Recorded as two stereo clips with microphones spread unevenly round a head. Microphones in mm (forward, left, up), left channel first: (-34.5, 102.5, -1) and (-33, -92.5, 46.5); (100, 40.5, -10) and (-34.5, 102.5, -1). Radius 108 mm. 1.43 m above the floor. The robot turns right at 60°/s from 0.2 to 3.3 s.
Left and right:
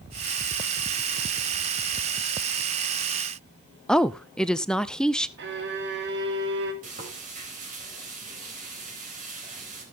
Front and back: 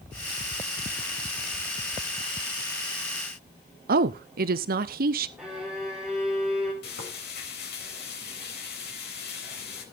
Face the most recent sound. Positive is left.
turn(degrees=-35)